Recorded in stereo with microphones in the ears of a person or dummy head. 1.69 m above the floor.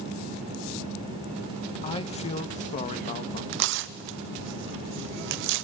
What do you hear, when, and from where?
1.8 s a man speaking: 25° left (ahead or behind), 1.6 m; by 3.4 s 40° left (ahead or behind), 2.5 m
3.5 s tearing paper: 65° right (ahead or behind), 0.8 m